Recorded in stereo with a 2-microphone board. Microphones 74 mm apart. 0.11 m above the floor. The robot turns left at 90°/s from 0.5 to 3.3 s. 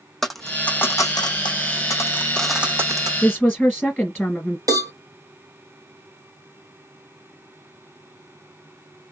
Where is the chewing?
No chewing in this recording.